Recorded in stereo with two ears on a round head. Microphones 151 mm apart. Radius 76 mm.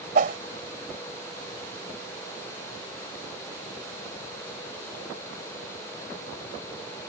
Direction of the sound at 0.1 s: 50° right (ahead or behind).